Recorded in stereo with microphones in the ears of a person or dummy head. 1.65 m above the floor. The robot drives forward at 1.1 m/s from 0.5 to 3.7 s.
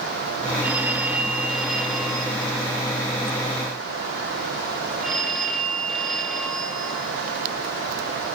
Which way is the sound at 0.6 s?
5° right (ahead or behind).